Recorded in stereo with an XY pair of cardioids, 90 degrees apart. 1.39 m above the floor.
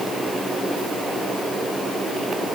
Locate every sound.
Only background noise.